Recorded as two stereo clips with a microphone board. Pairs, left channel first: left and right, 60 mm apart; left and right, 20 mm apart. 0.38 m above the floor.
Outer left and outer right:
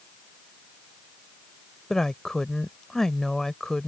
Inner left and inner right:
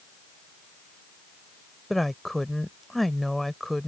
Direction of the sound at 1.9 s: 10° left (ahead or behind).